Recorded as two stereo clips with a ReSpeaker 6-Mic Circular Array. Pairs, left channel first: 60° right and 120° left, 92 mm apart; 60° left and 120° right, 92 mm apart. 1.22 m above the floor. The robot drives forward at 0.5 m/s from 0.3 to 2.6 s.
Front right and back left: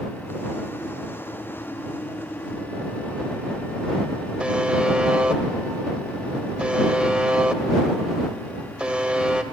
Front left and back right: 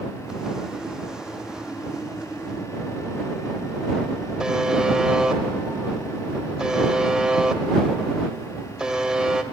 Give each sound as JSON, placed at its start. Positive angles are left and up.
{"t": 4.4, "sound": "a buzzer", "azimuth_deg": 175, "distance_m": 1.0}